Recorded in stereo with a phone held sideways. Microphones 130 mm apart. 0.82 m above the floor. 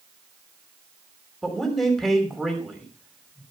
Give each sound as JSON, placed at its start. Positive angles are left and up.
{"t": 1.4, "sound": "a man speaking", "side_deg": 0, "distance_m": 2.5}